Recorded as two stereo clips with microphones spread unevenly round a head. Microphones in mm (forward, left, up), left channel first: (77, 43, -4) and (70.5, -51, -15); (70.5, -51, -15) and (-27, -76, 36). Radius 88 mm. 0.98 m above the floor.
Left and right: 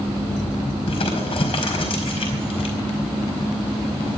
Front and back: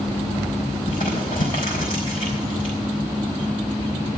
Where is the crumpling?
70° left, 4.5 m.